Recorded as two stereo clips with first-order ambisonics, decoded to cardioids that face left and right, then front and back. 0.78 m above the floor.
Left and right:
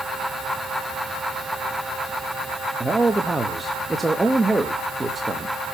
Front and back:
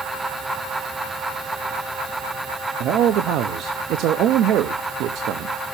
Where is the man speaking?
165° right, 0.7 m.